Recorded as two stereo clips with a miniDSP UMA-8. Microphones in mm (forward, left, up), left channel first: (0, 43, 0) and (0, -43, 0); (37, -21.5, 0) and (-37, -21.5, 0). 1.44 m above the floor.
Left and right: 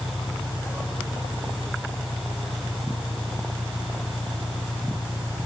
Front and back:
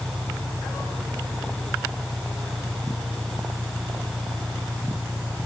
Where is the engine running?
75° left.